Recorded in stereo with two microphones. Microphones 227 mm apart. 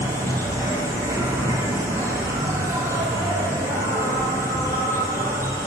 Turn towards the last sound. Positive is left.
turn(degrees=-10)  # may be behind; listen again after turning